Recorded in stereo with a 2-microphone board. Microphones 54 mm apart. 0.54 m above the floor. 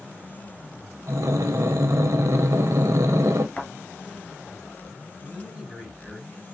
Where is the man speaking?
15° right (ahead or behind), 3.5 m.